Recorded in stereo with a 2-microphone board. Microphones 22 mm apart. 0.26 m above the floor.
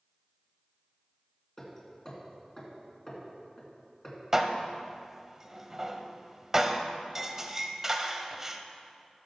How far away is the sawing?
No sawing in this recording.